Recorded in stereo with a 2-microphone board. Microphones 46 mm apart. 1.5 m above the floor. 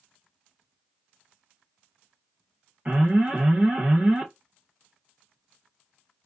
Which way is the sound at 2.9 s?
35° right (ahead or behind).